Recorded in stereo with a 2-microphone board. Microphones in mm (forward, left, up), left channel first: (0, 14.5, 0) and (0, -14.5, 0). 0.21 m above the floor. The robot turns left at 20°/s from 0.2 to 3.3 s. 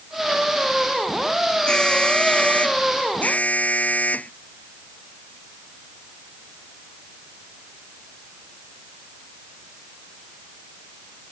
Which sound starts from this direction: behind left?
An alarm, at 1.7 s.